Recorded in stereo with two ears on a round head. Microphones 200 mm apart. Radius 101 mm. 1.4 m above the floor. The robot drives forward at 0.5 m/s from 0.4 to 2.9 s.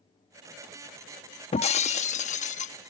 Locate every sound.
1.5 s breaking glass: 25° left (ahead or behind); by 2.9 s 30° left (ahead or behind)